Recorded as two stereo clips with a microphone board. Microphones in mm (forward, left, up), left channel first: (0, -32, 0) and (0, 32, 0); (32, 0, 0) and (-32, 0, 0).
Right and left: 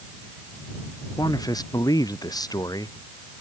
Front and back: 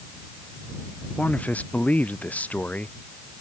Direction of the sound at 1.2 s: 70° right.